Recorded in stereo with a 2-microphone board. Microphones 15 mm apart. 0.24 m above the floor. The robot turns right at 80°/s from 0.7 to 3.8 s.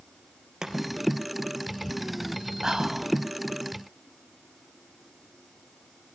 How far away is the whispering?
About 1.4 m.